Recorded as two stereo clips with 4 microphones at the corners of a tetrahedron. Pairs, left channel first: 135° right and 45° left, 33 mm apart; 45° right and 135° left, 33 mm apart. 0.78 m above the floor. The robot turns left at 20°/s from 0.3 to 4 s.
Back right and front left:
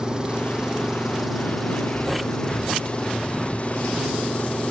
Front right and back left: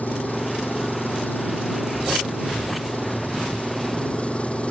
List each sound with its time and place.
0.0 s an engine running: 15° right; by 4.7 s 90° right